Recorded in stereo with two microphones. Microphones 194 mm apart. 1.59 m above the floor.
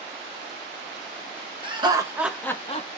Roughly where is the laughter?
Right.